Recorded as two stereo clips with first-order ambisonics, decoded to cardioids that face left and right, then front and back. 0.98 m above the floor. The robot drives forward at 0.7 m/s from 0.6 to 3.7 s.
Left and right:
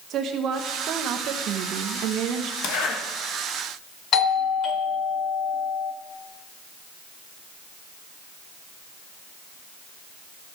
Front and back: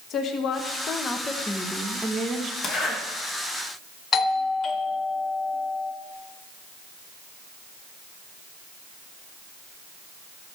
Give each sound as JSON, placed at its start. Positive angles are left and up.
{"t": 0.1, "sound": "a woman speaking", "azimuth_deg": -45, "distance_m": 1.3}
{"t": 2.6, "sound": "a zipper", "azimuth_deg": 75, "distance_m": 2.0}
{"t": 4.1, "sound": "a doorbell", "azimuth_deg": 55, "distance_m": 0.9}